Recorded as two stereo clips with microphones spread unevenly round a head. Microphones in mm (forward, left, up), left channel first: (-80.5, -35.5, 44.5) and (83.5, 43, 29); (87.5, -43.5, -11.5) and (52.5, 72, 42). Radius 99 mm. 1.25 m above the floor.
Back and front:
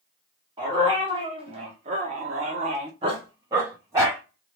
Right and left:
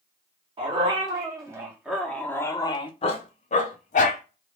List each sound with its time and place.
0.6 s a dog barking: 95° left, 1.6 m; by 4.2 s 55° right, 1.5 m